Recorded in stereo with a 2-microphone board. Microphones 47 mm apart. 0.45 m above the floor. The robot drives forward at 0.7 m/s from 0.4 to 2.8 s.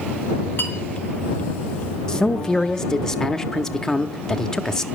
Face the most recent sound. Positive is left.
turn(degrees=15)  # may be behind; listen again after turning